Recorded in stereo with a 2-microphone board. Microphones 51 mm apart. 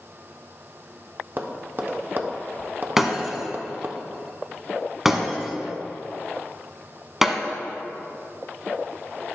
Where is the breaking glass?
10° right (ahead or behind), 1.0 m.